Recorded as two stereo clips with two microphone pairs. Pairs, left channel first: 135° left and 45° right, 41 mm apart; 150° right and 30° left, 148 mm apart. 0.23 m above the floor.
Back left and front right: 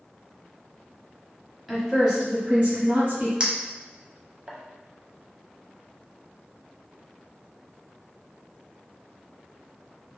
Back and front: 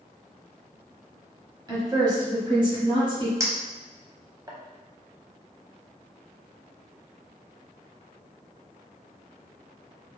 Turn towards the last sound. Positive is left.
turn(degrees=-20)